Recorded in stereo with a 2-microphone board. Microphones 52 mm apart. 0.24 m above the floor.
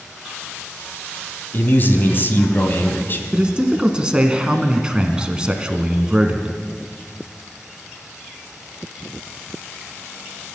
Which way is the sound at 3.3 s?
15° right (ahead or behind).